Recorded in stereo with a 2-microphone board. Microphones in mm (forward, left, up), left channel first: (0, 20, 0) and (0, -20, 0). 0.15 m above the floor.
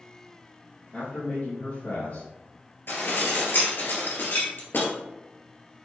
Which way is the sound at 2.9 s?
60° left (ahead or behind).